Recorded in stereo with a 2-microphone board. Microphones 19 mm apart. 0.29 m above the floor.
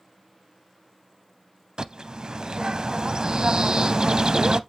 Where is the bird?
40° right (ahead or behind), 0.5 m.